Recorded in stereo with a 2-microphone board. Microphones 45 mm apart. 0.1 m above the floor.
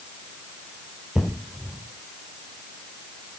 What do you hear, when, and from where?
1.1 s an explosion: 15° right (ahead or behind), 3.5 m